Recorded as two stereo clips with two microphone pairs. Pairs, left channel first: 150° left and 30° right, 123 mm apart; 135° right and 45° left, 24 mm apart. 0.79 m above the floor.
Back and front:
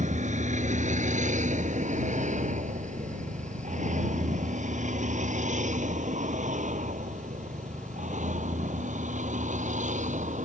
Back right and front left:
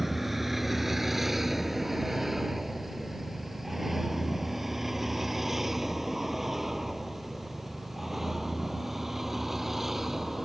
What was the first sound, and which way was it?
A vehicle, 35° right.